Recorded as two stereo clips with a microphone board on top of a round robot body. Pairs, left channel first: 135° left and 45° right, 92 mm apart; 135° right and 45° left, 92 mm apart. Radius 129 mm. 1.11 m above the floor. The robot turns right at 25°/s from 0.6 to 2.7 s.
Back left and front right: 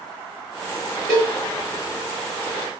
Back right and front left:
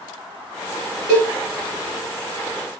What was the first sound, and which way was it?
A cowbell, 90° left.